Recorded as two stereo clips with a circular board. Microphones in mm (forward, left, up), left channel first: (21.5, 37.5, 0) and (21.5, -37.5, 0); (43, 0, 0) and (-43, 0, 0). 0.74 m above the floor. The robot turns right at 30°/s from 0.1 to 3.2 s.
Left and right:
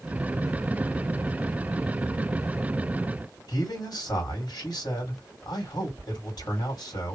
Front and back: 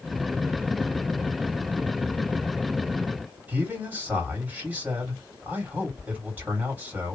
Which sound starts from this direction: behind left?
A man speaking, at 3.5 s.